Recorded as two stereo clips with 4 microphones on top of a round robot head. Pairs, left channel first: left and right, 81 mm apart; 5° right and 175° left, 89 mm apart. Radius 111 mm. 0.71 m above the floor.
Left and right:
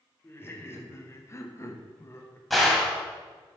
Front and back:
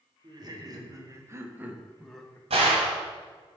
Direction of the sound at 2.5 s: Straight behind.